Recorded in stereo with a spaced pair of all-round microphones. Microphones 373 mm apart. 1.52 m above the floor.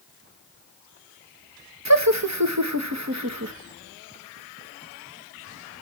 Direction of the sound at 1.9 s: 45° right (ahead or behind).